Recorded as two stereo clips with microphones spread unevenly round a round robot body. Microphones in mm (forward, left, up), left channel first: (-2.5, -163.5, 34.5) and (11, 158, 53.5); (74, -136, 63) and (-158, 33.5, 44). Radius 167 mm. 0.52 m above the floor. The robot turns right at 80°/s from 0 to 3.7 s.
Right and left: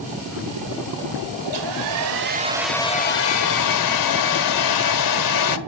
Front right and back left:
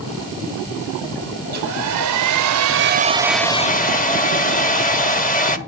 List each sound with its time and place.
1.4 s a hair dryer: 80° left, 1.3 m; by 5.6 s 100° right, 1.3 m